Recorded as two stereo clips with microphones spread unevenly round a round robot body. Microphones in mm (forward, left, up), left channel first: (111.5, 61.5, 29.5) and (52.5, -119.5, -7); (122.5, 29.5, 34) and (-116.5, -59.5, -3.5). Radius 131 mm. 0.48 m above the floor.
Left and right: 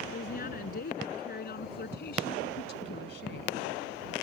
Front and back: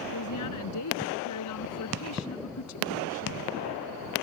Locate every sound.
0.1 s a woman speaking: 35° left; by 3.6 s 55° left